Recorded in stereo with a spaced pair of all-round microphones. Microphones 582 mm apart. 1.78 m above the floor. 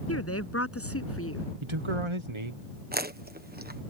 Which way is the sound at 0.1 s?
25° left (ahead or behind).